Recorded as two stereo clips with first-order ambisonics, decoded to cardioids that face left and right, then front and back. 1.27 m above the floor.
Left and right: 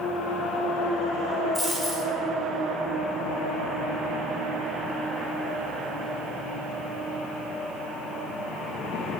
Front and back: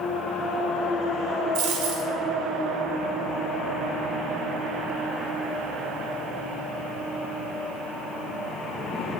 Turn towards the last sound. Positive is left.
turn(degrees=175)